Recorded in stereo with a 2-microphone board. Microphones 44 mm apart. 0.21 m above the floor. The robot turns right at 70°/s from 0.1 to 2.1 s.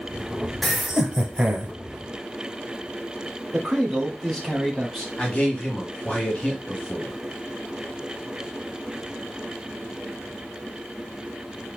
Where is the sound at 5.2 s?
30° left (ahead or behind), 1.2 m.